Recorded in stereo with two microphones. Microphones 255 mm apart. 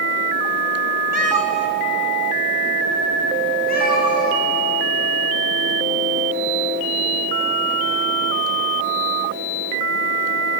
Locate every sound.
1.1 s a cat meowing: 80° left, 0.8 m; by 4.4 s 30° left (ahead or behind), 2.5 m